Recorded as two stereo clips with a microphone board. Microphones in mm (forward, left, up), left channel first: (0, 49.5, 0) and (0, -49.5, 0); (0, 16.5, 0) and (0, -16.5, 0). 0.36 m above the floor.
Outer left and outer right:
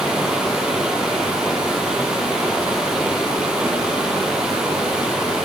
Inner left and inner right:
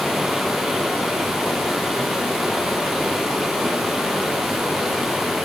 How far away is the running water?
About 4 m.